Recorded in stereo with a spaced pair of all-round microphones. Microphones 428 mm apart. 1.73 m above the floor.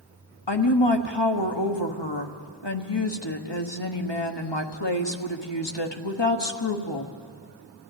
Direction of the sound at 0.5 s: 75° left (ahead or behind).